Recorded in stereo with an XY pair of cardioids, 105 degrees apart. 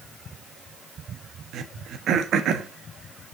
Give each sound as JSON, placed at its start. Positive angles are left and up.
{"t": 1.5, "sound": "throat clearing", "azimuth_deg": -65, "distance_m": 1.1}